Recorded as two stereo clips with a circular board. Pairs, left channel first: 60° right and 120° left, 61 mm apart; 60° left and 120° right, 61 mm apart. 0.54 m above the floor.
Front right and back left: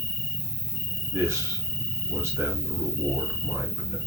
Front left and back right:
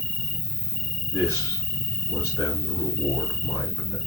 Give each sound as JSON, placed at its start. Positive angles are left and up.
{"t": 0.0, "sound": "an insect", "azimuth_deg": 45, "distance_m": 7.5}
{"t": 1.1, "sound": "a man speaking", "azimuth_deg": 75, "distance_m": 6.0}